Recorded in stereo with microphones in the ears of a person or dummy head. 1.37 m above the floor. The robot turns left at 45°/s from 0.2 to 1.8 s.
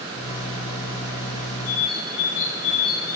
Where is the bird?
35° left (ahead or behind), 5 m; by 3.2 s 30° left (ahead or behind), 5 m.